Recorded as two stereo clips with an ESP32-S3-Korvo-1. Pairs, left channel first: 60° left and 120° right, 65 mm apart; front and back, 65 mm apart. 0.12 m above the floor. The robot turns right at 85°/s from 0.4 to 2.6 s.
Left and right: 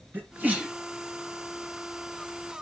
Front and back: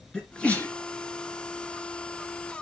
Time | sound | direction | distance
0.1 | a sneeze | 70° right | 2 m